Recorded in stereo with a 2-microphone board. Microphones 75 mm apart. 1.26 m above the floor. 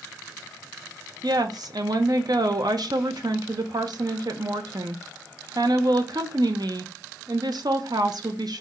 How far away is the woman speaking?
About 0.7 m.